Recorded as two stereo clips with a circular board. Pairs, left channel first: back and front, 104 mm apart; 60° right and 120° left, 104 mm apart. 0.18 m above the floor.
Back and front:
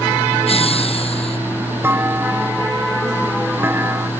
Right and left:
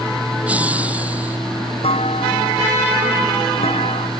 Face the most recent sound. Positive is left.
turn(degrees=-70)